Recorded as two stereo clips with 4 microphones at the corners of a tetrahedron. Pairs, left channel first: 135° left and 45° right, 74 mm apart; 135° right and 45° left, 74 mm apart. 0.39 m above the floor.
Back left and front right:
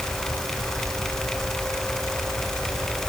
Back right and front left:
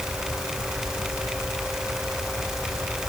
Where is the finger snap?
No finger snap in this recording.